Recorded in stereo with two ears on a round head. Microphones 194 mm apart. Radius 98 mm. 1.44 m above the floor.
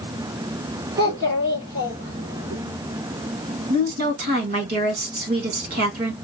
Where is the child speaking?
40° right (ahead or behind), 2.5 m.